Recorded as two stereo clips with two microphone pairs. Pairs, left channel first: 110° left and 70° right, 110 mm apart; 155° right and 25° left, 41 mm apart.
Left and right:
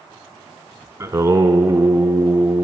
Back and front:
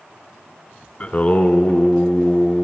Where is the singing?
120° right, 0.7 m.